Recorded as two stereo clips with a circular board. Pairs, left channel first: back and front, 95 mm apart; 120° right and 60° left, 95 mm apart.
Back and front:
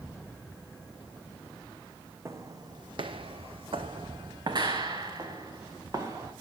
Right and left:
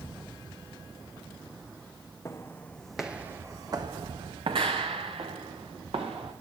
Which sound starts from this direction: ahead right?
Footsteps, at 2.2 s.